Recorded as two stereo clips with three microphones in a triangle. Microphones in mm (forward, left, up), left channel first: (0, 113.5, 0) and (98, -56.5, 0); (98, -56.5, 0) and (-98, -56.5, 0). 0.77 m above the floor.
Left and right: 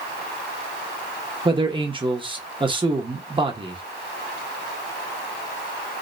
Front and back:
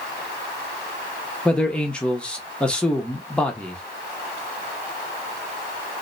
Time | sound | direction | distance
1.4 | a man speaking | 80° right | 0.9 m